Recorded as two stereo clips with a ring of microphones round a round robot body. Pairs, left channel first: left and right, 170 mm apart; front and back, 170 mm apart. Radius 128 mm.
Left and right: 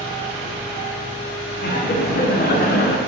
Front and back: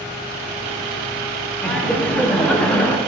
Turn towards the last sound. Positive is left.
turn(degrees=85)